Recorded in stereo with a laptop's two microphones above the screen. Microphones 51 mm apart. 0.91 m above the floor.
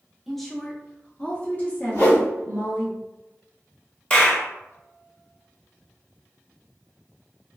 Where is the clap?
25° left (ahead or behind), 0.8 m.